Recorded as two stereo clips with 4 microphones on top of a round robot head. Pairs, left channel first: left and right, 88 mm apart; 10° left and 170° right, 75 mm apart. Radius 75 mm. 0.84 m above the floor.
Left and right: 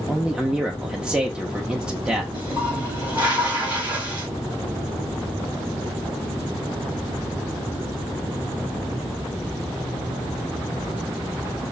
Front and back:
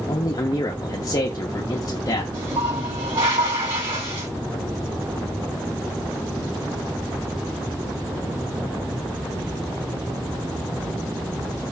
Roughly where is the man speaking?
Ahead.